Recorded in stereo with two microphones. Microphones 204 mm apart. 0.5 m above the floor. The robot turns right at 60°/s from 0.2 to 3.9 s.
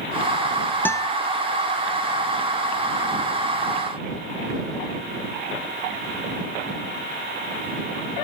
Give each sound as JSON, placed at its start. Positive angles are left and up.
{"t": 0.8, "sound": "a guitar", "side_deg": 10}